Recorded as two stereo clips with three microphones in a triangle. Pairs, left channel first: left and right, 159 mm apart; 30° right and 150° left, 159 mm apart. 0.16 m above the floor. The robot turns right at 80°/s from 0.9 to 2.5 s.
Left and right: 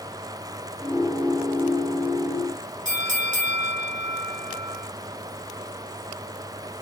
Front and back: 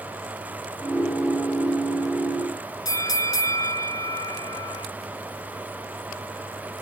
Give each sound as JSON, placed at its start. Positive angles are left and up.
{"t": 2.9, "sound": "a bell", "azimuth_deg": -95, "distance_m": 0.5}